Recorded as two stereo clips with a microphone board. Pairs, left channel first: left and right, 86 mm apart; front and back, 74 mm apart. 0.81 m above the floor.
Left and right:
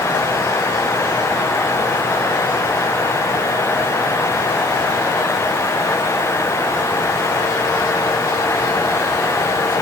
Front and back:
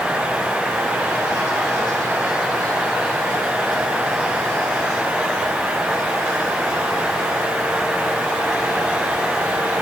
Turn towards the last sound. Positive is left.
No sound to turn to.